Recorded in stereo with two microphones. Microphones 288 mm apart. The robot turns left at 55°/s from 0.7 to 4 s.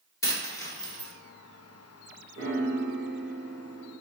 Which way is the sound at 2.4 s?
80° right.